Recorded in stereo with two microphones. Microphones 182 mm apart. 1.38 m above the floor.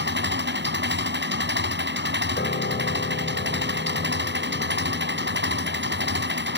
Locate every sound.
0.0 s an engine running: 80° right
2.4 s a piano: 85° left